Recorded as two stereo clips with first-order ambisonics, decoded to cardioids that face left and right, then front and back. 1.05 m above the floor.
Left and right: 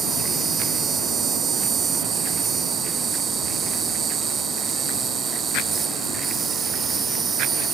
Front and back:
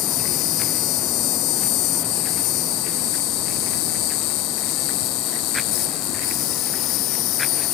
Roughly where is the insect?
Ahead right.